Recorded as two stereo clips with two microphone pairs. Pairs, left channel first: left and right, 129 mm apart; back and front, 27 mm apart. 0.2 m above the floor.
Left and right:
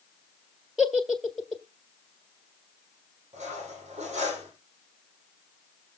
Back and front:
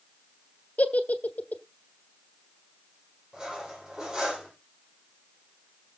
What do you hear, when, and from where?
0.8 s a giggle: straight behind, 1.3 m
3.3 s cutlery clinking: 60° right, 5.5 m